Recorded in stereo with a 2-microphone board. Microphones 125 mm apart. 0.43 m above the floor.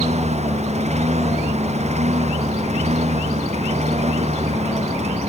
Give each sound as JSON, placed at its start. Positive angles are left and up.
{"t": 0.0, "sound": "a lawn mower", "side_deg": -60}